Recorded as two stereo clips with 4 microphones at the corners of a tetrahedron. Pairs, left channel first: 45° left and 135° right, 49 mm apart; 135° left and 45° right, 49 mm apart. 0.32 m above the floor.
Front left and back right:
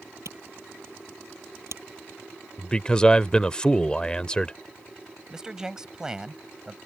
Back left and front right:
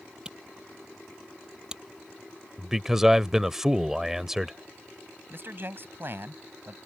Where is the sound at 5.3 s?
65° right.